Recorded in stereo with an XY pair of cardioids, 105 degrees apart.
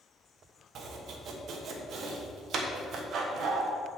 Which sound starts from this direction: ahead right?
Chopping, at 0.8 s.